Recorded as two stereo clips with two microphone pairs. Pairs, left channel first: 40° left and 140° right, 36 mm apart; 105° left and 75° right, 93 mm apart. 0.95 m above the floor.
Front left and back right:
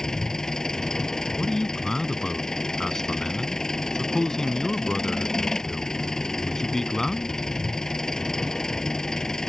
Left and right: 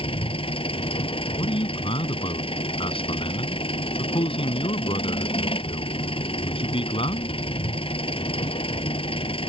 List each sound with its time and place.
0.0 s an engine running: 110° left
1.4 s a man speaking: 115° left